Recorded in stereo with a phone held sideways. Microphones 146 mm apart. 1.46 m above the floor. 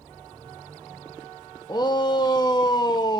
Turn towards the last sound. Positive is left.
turn(degrees=30)  # may be behind; listen again after turning